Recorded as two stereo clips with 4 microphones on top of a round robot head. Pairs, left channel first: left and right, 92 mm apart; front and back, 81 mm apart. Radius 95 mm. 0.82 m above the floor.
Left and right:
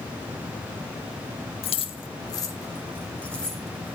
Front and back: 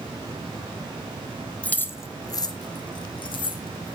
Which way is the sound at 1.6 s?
75° left.